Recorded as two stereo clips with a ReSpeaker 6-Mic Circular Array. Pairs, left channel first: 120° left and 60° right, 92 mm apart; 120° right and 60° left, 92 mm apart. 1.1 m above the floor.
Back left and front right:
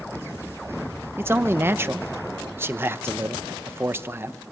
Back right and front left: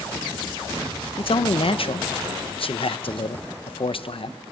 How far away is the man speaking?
About 0.7 m.